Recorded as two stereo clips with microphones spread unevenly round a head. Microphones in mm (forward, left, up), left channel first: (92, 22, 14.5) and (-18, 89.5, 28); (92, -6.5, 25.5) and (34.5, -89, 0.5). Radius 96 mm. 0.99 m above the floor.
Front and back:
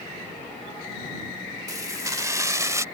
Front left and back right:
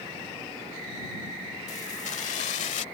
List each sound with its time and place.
1.7 s keys jangling: 85° left; by 2.8 s 80° left